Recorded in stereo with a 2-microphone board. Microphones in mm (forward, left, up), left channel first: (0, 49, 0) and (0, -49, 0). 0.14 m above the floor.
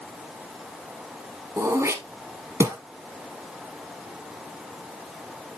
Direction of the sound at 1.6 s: 25° right (ahead or behind).